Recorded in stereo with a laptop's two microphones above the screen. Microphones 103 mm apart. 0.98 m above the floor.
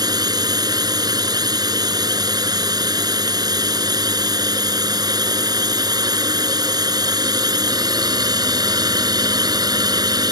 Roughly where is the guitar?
I don't hear a guitar.